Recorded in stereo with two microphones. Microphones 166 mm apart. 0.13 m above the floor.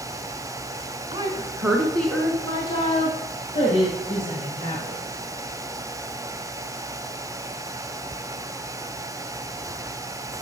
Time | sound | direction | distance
1.1 | a woman speaking | 30° right (ahead or behind) | 1.2 m